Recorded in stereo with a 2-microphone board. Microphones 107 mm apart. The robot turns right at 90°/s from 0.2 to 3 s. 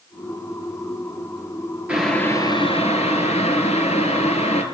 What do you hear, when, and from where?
1.9 s boiling: 10° right, 4 m; by 4.6 s 90° left, 4 m